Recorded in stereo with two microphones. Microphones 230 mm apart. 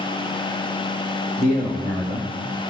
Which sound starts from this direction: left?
A man speaking, at 1.4 s.